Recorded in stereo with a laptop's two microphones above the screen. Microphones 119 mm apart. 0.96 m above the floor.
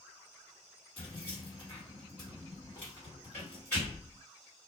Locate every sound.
1.0 s keys jangling: 20° left (ahead or behind), 1.8 m